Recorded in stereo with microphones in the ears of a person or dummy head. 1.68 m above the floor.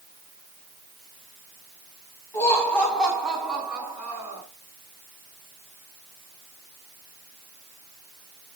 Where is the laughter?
20° left (ahead or behind), 4 m; by 4.4 s 10° right (ahead or behind), 6 m.